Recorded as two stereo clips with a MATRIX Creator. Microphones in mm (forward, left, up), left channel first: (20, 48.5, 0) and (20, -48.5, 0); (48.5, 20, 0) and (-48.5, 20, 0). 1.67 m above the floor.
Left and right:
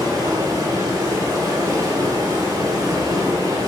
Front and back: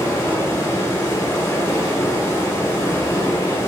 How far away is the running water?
About 2.0 m.